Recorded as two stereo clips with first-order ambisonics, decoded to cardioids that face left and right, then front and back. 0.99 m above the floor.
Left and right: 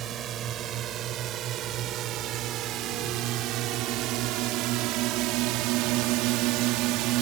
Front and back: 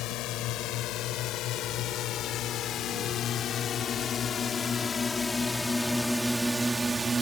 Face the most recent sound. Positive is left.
turn(degrees=-105)